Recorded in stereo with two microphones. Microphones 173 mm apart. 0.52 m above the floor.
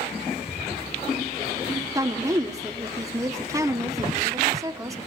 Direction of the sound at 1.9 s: 20° right (ahead or behind).